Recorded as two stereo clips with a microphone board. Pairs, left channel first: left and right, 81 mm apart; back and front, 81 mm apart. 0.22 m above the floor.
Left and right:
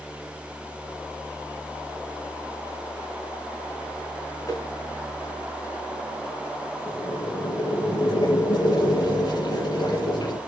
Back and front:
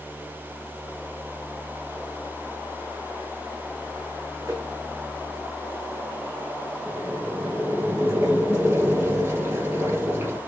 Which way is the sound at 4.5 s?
50° left.